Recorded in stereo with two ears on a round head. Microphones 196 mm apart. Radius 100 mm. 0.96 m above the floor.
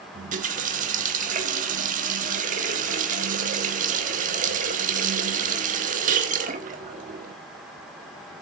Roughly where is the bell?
No bell in this recording.